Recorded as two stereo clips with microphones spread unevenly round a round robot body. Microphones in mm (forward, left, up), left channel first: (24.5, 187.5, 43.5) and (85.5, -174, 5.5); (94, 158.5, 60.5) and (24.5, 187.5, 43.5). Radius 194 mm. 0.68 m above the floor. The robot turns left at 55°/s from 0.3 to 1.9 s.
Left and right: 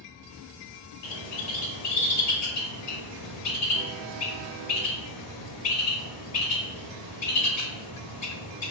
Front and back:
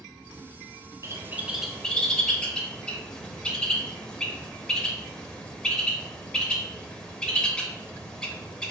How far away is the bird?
About 1.0 m.